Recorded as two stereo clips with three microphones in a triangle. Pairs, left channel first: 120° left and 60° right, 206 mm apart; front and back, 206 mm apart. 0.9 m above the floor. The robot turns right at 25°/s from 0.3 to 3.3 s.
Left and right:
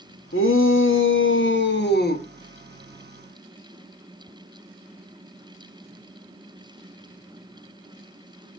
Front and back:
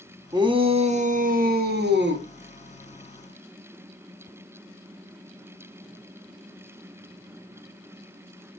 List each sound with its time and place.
0.3 s a shout: 110° left, 1.1 m; by 2.2 s 160° left, 1.1 m